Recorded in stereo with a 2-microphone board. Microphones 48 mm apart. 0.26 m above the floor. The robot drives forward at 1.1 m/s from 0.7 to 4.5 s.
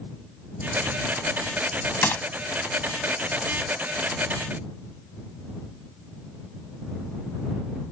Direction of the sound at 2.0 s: 50° left (ahead or behind).